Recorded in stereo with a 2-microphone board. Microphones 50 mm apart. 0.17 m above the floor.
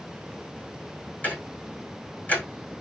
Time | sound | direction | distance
1.2 | ticking | 30° left (ahead or behind) | 5.5 m